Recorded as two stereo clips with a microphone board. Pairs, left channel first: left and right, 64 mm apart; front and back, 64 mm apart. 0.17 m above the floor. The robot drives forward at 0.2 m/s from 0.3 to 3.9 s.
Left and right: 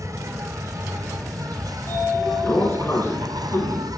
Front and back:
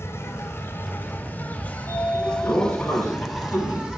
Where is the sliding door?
45° left, 4 m; by 3.9 s 50° left, 4 m.